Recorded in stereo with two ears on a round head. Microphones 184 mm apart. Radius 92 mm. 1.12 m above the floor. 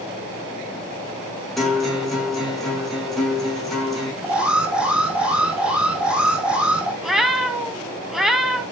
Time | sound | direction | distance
1.6 | a guitar | centre (ahead or behind) | 8.5 m
4.2 | an alarm | 5° right (ahead or behind) | 4 m
7.0 | a cat meowing | centre (ahead or behind) | 1.9 m